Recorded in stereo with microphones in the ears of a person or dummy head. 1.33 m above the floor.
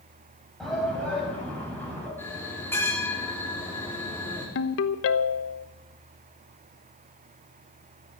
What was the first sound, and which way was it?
A shout, 5° left (ahead or behind).